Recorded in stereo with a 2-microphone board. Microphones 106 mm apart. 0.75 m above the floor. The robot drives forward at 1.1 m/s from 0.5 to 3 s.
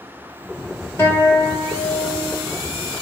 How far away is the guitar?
About 4 m.